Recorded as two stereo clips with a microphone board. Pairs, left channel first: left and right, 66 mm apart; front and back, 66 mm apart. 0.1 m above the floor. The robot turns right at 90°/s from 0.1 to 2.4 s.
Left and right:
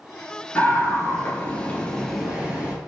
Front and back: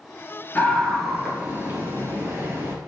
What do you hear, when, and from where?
0.6 s a scream: 40° left, 1.8 m; by 2.8 s 155° right, 1.8 m